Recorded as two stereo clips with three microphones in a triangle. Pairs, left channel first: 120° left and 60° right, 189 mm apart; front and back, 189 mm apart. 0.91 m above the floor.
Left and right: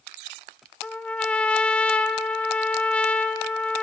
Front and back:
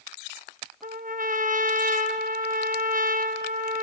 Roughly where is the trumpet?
Behind.